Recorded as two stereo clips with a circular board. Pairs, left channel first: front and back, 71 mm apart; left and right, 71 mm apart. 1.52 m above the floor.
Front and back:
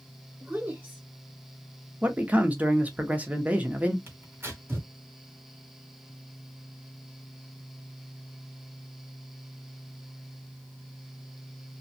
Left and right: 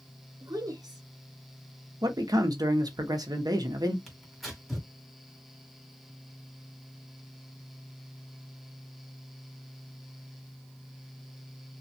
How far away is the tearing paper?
About 1.5 m.